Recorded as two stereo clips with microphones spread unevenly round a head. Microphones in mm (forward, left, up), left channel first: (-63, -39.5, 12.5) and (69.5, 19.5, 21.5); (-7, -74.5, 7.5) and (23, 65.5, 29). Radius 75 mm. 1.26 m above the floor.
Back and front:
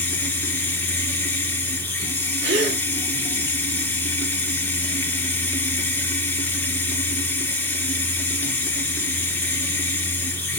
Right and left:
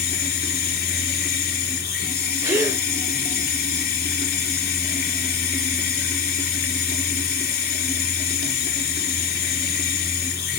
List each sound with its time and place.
0.0 s running water: 75° right, 2.5 m
2.4 s a gasp: 10° left, 3 m